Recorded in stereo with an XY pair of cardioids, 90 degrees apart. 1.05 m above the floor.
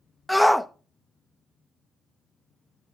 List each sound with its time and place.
0.3 s a shout: 5° left, 0.8 m